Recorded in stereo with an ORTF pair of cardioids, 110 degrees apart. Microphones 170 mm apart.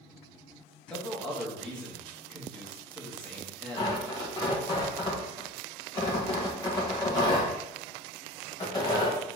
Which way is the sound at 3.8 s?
25° left.